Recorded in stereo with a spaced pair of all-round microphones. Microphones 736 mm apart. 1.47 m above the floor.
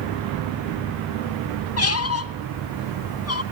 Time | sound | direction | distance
1.8 | a squeak | 20° left (ahead or behind) | 0.7 m